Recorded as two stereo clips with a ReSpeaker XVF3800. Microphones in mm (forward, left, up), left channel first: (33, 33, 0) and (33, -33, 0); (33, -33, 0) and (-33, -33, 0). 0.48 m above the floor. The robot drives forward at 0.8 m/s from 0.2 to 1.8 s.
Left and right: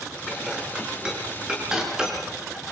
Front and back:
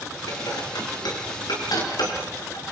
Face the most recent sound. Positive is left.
turn(degrees=-10)